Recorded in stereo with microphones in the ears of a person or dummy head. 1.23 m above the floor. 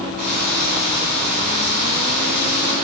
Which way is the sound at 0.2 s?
45° right (ahead or behind).